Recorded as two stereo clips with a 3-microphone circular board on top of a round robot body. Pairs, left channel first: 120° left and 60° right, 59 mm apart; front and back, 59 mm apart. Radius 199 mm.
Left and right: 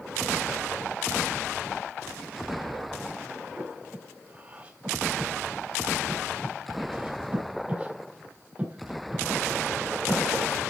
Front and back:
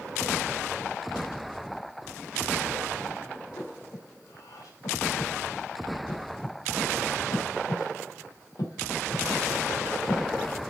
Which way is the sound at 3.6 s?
10° left.